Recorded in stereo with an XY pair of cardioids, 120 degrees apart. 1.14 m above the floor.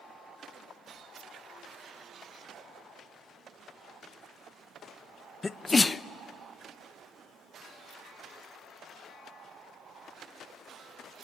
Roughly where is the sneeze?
Ahead.